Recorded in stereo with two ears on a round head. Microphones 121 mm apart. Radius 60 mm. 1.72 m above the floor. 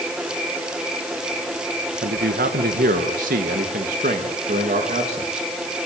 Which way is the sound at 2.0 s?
80° right.